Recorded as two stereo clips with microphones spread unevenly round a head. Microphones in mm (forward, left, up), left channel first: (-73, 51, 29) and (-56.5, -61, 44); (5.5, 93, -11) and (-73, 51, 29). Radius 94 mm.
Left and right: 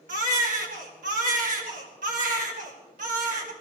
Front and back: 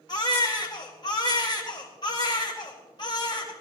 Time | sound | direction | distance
0.1 | a baby crying | 45° right | 1.9 m